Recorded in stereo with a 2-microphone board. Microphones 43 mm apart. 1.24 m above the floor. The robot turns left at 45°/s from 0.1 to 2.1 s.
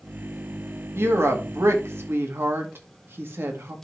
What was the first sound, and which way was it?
A woman speaking, 65° right.